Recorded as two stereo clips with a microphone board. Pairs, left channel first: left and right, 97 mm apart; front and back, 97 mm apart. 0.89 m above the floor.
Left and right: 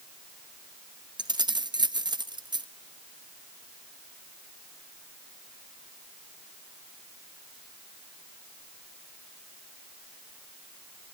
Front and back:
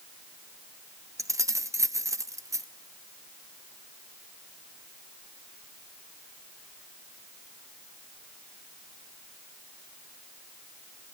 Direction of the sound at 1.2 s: 125° right.